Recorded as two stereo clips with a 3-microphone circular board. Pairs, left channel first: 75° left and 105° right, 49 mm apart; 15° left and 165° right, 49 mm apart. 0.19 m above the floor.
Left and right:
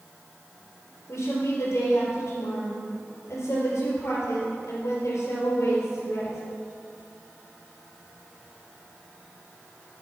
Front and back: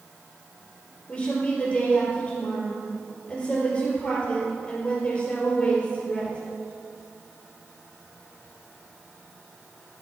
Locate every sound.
1.1 s a woman speaking: 80° left, 4 m